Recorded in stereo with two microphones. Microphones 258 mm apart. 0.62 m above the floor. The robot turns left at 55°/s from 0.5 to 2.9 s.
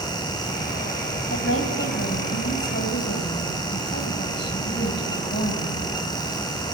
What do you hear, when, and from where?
1.3 s a woman speaking: 130° left, 4.5 m; by 5.9 s 40° left, 4.5 m